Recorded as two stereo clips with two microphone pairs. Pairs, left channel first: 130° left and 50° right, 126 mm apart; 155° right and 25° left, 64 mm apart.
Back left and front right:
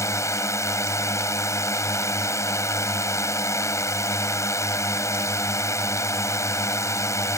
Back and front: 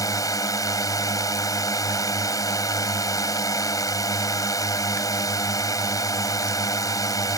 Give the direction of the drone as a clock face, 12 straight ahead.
5 o'clock.